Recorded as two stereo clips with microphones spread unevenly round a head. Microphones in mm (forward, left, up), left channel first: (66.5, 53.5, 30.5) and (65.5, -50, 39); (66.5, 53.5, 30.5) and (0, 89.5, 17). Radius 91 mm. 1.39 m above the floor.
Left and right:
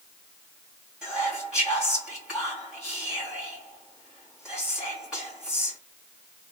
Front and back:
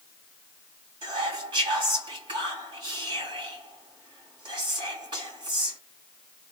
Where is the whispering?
175° right, 1.7 m.